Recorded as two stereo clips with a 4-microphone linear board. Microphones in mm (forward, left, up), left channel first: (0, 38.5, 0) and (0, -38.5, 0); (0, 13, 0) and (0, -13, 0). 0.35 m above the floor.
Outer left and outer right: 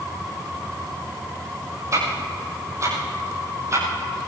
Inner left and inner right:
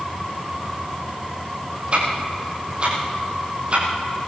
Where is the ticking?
45° right (ahead or behind), 8 m.